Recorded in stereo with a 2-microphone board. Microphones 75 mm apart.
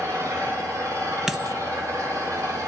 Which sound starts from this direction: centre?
A dropped coin, at 1.3 s.